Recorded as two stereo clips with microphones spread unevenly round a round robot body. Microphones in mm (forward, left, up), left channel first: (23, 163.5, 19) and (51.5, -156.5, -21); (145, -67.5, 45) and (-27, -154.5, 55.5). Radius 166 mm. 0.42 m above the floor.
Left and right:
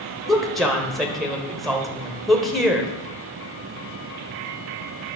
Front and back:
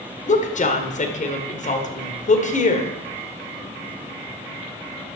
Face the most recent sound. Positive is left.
turn(degrees=0)